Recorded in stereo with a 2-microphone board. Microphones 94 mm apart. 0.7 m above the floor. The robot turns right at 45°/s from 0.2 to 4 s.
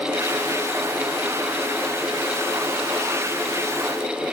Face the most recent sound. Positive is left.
No sound to turn to.